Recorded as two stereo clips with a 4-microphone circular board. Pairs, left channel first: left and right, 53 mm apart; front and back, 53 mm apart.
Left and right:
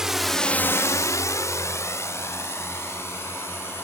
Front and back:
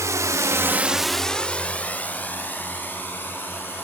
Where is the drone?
170° right; by 3.8 s 50° left.